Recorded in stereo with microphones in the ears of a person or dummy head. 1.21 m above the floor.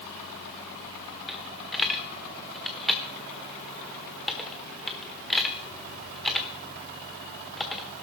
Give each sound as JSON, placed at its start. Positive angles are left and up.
{"t": 1.3, "sound": "a dropped coin", "side_deg": 0, "distance_m": 1.2}